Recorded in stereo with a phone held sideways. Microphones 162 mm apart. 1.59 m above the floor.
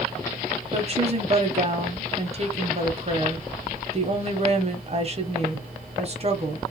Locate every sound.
0.7 s a woman speaking: 40° right (ahead or behind), 0.7 m